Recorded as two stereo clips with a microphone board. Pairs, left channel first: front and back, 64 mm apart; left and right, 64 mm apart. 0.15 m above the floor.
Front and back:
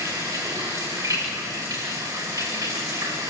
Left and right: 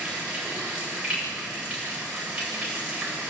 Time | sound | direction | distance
0.0 | running water | 170° right | 7.5 m